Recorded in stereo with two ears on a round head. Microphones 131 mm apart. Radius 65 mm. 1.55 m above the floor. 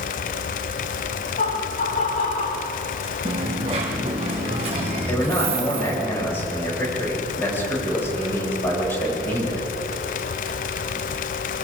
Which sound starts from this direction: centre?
A man speaking, at 5.1 s.